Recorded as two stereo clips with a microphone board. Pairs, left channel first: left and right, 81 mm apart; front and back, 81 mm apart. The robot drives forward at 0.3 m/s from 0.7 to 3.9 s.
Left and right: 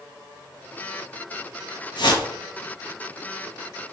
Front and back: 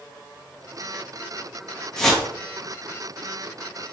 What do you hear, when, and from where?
2.0 s a whoosh: 80° left, 0.6 m; by 2.3 s 90° left, 0.6 m